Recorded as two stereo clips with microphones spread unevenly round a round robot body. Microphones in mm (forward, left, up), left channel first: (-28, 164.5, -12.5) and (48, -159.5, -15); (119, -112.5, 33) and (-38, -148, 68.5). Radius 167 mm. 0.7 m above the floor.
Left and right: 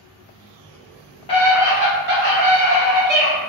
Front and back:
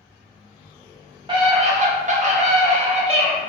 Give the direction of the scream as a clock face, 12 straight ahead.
7 o'clock.